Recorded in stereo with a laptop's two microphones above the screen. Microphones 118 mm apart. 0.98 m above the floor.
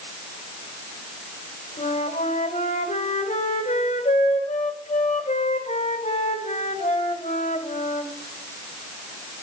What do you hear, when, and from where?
1.8 s a flute: 70° left (ahead or behind), 1.6 m